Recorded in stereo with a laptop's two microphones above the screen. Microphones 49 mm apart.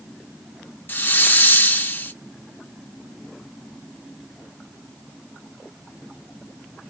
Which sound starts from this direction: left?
A hiss, at 0.9 s.